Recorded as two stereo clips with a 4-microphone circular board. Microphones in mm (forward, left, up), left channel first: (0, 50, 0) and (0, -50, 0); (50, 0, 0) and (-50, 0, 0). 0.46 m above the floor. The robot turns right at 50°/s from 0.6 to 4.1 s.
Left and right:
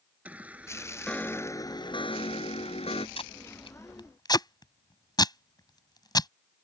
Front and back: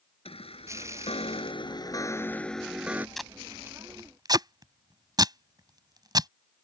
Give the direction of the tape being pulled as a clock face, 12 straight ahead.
9 o'clock.